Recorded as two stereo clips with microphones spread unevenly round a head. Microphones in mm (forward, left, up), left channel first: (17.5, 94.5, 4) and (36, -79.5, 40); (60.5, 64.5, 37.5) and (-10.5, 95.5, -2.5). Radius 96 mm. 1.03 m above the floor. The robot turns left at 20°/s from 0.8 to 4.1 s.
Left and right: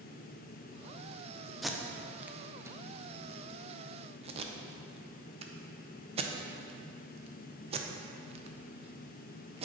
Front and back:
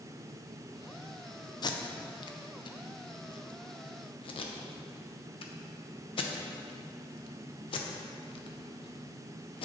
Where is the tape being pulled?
20° left, 0.6 m; by 9.7 s 30° right, 0.6 m.